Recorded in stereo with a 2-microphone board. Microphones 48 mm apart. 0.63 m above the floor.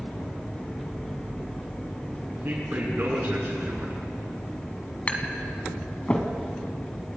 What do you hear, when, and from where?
2.3 s a man speaking: 45° right (ahead or behind), 9 m
5.1 s tapping: 30° left (ahead or behind), 2 m